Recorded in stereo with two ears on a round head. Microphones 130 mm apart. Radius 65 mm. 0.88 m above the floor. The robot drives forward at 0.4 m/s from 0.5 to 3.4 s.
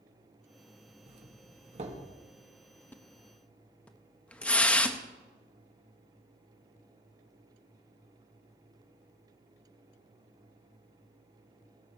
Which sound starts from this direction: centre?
A splash, at 2.9 s.